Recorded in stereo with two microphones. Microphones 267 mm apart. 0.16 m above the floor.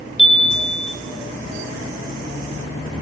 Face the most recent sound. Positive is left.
turn(degrees=20)  # may be behind; listen again after turning